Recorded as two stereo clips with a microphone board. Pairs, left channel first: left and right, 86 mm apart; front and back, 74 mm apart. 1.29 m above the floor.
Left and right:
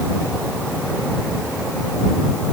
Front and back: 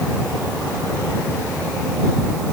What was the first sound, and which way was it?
Only background noise.